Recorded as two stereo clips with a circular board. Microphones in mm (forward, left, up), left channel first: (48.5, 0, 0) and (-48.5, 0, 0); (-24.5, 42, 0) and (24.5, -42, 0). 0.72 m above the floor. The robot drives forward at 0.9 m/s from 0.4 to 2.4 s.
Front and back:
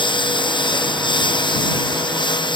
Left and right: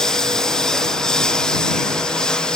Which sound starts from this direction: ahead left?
A lawn mower, at 0.0 s.